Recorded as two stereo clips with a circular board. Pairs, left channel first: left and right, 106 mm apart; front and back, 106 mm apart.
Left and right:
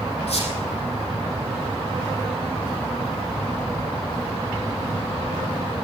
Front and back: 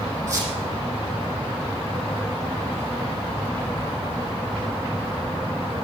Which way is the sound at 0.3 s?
115° left.